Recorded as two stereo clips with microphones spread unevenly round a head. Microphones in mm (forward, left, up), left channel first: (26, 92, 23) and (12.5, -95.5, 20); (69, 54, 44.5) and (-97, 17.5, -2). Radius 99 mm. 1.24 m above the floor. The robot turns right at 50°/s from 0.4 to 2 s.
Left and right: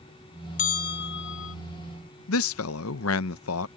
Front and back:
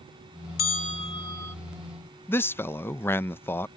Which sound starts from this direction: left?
A man speaking, at 2.3 s.